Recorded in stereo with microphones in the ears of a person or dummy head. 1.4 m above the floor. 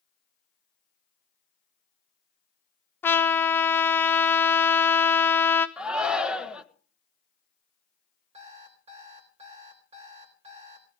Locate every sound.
3.0 s a trumpet: 15° left (ahead or behind), 0.8 m
5.8 s a shout: 5° right (ahead or behind), 1.5 m
8.3 s an alarm clock: 35° right (ahead or behind), 3.5 m